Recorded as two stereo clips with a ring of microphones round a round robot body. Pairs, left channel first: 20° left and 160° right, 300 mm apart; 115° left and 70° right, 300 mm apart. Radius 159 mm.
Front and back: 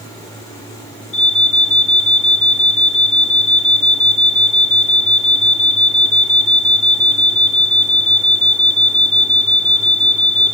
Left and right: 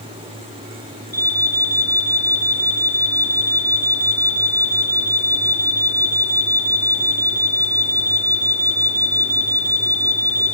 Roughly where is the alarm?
Ahead.